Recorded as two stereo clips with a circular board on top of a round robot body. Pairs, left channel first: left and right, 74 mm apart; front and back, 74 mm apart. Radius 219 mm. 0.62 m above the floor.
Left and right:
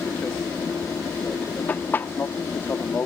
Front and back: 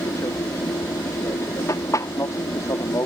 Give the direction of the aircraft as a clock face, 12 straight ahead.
11 o'clock.